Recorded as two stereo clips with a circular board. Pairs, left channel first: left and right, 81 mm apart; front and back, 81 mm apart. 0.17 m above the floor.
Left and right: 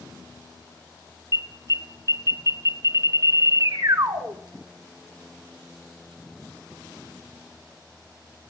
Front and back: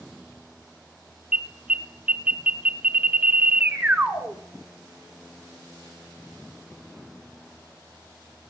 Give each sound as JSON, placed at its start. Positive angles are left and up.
{"t": 1.3, "sound": "an alarm", "azimuth_deg": -110, "distance_m": 1.3}